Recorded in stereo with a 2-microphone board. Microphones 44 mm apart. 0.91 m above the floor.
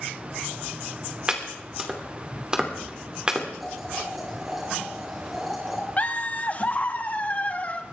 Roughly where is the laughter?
Left.